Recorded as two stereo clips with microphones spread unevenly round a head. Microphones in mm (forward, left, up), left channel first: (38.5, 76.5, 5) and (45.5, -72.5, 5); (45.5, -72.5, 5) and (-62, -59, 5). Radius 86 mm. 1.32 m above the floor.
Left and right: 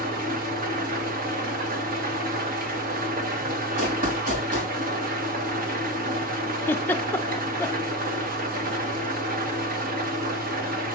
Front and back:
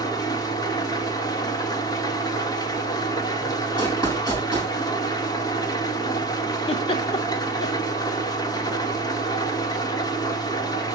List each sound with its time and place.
0.0 s an engine running: 60° right, 1.5 m
3.8 s running footsteps: 60° right, 6 m
6.7 s a giggle: 20° left, 0.6 m